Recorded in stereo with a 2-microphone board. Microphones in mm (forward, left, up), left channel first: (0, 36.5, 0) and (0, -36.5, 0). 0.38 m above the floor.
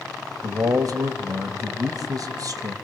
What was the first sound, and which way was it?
A man speaking, 50° right (ahead or behind).